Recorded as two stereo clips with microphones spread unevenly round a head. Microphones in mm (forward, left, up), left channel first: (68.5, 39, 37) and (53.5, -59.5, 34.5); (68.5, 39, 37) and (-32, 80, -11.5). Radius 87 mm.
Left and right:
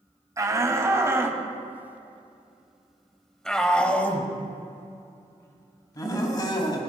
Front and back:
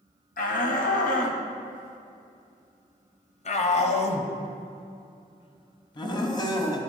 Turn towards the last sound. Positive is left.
turn(degrees=35)